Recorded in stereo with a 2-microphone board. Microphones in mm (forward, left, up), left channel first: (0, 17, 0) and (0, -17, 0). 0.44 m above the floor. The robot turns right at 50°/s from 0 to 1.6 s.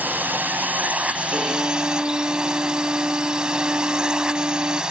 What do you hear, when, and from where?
0.0 s a drone: 105° right; by 4.9 s 25° right
1.3 s a violin: 60° right (ahead or behind); by 4.8 s 45° right (ahead or behind)